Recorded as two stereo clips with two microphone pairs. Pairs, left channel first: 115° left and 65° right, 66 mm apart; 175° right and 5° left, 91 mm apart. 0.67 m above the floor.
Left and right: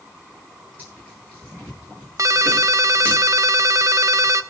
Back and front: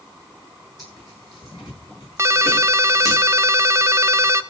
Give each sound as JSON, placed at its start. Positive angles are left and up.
{"t": 0.8, "sound": "tearing paper", "azimuth_deg": -125, "distance_m": 9.5}
{"t": 2.2, "sound": "a ringtone", "azimuth_deg": -45, "distance_m": 0.7}